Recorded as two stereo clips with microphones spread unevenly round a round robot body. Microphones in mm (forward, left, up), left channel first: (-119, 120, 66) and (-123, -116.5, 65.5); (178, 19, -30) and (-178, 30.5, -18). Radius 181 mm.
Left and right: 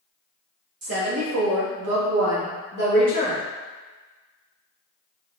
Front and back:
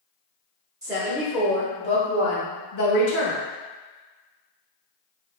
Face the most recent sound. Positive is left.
turn(degrees=-20)